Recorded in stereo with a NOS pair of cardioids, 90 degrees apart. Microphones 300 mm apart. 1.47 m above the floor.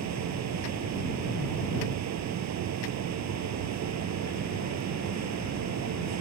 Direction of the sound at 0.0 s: 65° right.